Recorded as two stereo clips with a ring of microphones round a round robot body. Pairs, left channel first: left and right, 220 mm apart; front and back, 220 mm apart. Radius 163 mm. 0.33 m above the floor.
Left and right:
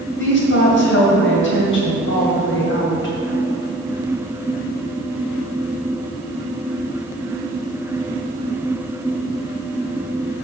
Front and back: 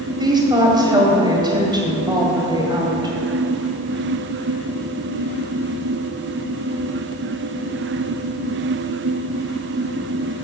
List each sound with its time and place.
0.2 s a woman speaking: 110° left, 1.9 m